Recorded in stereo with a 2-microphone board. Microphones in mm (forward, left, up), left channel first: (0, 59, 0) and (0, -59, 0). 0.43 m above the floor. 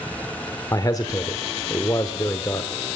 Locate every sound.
0.7 s a man speaking: 30° left (ahead or behind), 0.8 m